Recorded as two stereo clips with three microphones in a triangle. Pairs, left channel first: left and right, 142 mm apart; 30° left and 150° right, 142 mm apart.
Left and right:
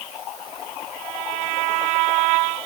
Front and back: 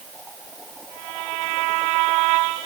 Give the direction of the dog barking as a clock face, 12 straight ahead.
I don't hear a dog barking.